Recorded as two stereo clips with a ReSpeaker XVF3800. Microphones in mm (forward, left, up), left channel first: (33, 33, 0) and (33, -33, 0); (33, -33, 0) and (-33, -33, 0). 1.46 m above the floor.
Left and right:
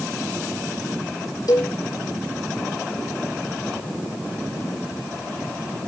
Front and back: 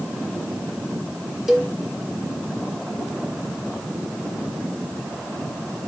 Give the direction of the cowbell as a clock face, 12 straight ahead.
9 o'clock.